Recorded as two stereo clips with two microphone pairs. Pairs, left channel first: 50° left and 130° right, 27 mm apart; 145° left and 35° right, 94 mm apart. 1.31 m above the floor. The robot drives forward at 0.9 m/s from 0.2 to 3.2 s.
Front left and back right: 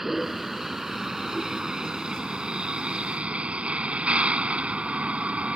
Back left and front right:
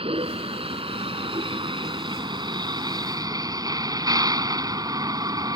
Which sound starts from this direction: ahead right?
A vehicle, at 0.0 s.